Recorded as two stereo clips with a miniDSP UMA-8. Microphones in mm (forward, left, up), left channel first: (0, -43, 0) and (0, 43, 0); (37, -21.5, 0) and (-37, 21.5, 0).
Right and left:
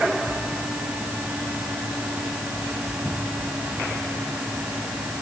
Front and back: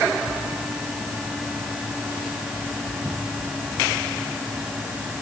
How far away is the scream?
I don't hear a scream.